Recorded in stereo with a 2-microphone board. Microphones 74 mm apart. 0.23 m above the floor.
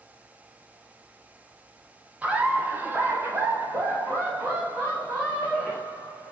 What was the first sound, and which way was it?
Laughter, 20° right (ahead or behind).